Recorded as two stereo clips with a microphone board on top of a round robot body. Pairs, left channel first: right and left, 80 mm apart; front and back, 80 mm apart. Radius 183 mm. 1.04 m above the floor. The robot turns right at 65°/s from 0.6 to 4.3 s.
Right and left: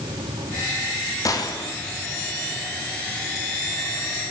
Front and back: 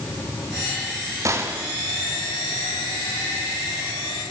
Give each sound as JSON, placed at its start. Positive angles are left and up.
{"t": 1.2, "sound": "a gunshot", "azimuth_deg": -135, "distance_m": 3.5}